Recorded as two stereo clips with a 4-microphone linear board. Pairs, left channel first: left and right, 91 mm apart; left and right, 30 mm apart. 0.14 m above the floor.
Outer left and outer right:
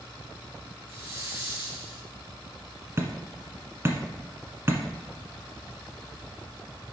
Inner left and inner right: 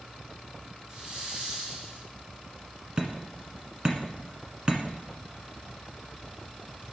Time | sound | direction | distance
0.9 | a hiss | 30° right (ahead or behind) | 2.5 m
3.0 | hammering | 30° right (ahead or behind) | 1.5 m